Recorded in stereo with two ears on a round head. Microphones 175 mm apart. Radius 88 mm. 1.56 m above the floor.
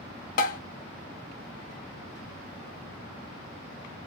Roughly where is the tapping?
Left.